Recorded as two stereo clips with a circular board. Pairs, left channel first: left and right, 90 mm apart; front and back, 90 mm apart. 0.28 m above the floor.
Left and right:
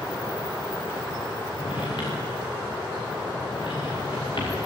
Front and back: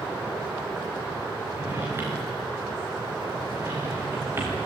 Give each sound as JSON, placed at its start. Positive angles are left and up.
{"t": 1.5, "sound": "a drawer", "azimuth_deg": 115, "distance_m": 9.0}